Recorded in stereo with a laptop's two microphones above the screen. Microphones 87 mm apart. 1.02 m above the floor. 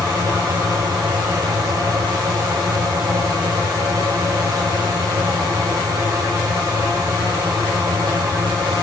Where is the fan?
45° right (ahead or behind), 4.5 m.